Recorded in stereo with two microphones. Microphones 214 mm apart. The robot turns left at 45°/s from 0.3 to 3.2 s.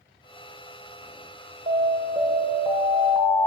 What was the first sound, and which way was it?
An alarm, 105° right.